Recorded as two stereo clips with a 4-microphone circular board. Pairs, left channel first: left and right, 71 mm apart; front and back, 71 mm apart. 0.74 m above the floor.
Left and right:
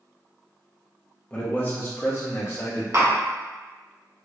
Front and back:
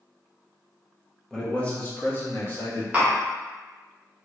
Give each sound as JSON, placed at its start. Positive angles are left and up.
{"t": 1.3, "sound": "a man speaking", "azimuth_deg": 70, "distance_m": 0.9}
{"t": 2.9, "sound": "tapping", "azimuth_deg": -115, "distance_m": 1.4}